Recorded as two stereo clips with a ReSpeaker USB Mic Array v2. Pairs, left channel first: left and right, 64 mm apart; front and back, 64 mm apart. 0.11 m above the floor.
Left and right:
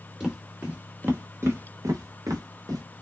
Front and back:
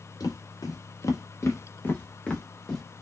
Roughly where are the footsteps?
Ahead.